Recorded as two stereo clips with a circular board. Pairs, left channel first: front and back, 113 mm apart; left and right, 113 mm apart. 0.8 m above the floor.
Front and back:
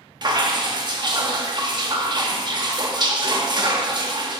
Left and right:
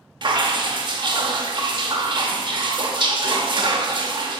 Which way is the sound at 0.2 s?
135° right.